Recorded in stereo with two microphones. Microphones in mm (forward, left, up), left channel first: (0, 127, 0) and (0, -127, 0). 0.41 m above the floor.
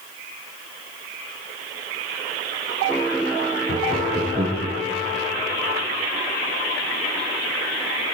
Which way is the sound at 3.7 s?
20° right (ahead or behind).